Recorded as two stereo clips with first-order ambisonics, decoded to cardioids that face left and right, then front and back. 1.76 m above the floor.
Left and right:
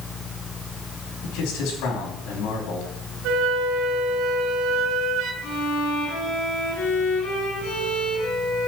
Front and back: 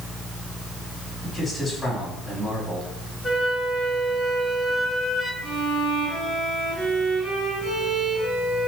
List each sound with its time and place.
1.2 s a man speaking: 90° left, 4 m
3.2 s a flute: 90° right, 2 m
5.4 s a violin: 100° left, 6.5 m